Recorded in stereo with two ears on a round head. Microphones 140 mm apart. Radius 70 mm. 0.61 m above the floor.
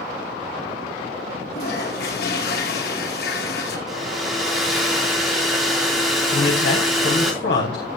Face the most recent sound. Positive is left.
turn(degrees=80)